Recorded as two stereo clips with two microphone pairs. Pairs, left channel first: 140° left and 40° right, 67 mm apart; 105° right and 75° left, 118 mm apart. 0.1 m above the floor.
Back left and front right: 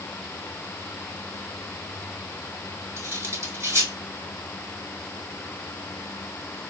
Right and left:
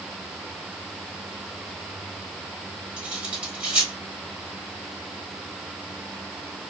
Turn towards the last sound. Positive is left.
turn(degrees=-5)